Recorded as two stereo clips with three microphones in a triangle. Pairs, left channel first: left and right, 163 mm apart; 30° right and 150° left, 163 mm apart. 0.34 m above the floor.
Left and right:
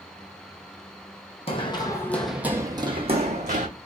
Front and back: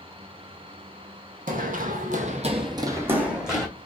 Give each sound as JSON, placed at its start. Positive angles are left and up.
{"t": 1.5, "sound": "running footsteps", "azimuth_deg": 135, "distance_m": 0.8}